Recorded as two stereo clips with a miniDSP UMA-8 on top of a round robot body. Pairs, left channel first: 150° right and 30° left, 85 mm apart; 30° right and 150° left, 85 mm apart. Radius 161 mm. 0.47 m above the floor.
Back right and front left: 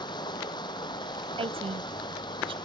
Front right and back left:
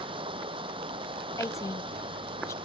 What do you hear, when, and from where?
0.0 s running water: 170° left
1.4 s a woman speaking: 25° left